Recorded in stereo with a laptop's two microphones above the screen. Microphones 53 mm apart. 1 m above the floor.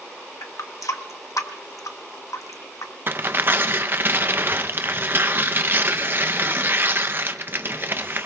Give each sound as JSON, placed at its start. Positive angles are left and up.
{"t": 0.4, "sound": "a running tap", "side_deg": 80, "distance_m": 0.9}
{"t": 3.1, "sound": "tearing paper", "side_deg": -40, "distance_m": 0.6}